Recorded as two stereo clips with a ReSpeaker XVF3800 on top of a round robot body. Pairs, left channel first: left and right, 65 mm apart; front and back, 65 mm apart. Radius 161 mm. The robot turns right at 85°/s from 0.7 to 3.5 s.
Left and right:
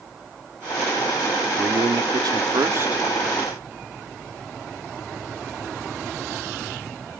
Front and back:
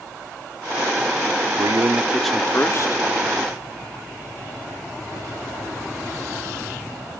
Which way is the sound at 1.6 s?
145° right.